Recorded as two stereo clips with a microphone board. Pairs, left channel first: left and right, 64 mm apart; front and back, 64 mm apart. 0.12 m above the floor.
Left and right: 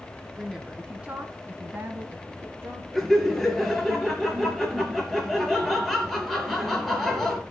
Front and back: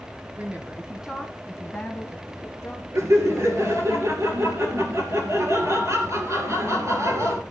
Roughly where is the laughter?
Behind.